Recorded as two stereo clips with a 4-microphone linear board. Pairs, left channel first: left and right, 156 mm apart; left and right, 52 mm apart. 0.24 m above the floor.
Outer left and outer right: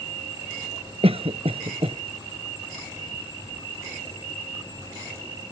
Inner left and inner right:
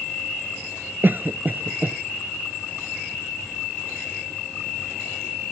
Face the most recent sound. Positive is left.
turn(degrees=-40)  # may be behind; listen again after turning